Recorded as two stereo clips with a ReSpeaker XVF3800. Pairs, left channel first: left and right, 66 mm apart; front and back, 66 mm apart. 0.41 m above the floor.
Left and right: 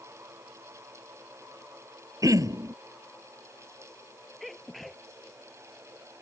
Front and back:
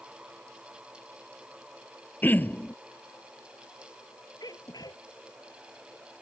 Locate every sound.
2.2 s throat clearing: 60° right
4.4 s a sneeze: straight ahead